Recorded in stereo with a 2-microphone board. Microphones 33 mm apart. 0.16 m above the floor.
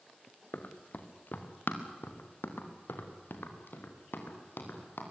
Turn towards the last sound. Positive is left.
turn(degrees=80)